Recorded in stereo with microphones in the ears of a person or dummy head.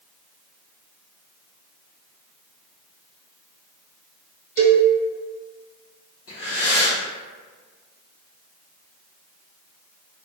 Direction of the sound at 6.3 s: 65° left (ahead or behind).